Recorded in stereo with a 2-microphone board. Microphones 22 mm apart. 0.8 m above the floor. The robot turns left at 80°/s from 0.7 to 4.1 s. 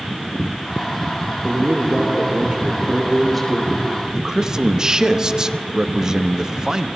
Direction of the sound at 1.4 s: 40° right.